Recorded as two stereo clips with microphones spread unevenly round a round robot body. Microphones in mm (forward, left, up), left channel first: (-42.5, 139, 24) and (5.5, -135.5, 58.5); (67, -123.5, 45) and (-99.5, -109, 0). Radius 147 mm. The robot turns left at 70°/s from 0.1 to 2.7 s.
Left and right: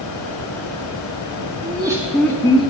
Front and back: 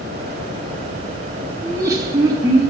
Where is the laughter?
145° right, 1.1 m; by 2.7 s 140° left, 1.1 m.